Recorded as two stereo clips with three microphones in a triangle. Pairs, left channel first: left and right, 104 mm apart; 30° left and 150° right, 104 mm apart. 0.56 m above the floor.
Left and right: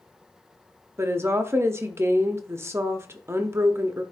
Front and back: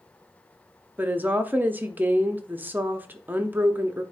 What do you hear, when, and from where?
1.0 s a woman speaking: 105° right, 0.7 m